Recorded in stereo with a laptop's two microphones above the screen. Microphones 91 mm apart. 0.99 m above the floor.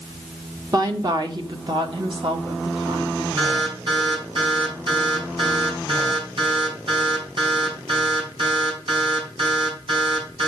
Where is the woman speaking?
45° right (ahead or behind), 1.3 m; by 3.3 s 70° right (ahead or behind), 2.5 m.